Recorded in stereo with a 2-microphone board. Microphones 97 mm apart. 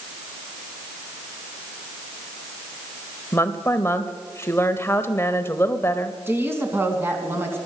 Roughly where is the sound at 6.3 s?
Right.